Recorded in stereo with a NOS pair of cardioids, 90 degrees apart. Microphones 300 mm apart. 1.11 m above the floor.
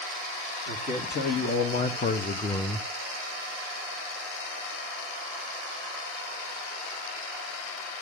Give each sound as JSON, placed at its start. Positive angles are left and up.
{"t": 0.7, "sound": "a man speaking", "azimuth_deg": 55, "distance_m": 3.0}